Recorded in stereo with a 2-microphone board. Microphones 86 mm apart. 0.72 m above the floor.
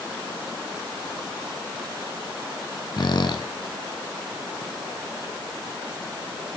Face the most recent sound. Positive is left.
turn(degrees=60)  # may be behind; listen again after turning